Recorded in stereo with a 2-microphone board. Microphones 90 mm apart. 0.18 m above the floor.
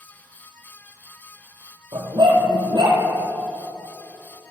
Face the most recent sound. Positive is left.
turn(degrees=-60)  # may be behind; listen again after turning